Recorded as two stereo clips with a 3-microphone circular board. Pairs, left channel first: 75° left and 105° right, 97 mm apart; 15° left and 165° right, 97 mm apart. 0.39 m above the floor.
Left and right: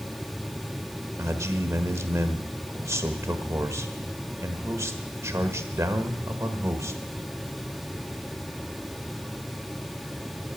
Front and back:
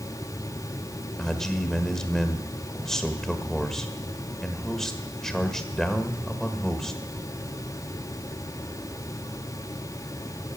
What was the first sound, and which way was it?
A man speaking, 65° right.